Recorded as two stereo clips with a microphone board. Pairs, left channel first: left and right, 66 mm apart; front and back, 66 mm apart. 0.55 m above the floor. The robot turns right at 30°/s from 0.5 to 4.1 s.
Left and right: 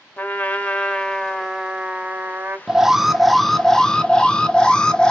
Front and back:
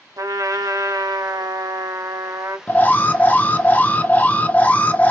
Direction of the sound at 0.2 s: 155° left.